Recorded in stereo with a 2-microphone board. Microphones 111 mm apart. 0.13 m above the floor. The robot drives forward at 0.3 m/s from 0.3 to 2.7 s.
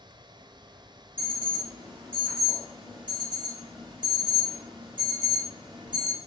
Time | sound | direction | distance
1.2 | an alarm | 20° right (ahead or behind) | 1.8 m